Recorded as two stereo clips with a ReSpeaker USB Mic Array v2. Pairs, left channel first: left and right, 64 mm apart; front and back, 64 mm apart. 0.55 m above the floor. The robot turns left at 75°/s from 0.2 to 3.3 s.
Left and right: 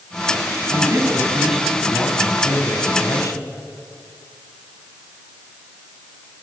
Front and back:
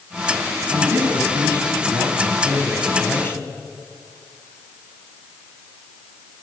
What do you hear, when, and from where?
0.7 s a man speaking: 110° right, 4 m; by 3.5 s 55° left, 4 m